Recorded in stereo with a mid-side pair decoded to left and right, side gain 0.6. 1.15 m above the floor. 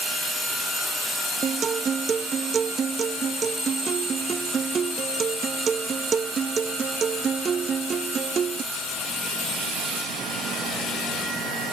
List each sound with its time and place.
1.4 s a guitar: 35° right, 0.8 m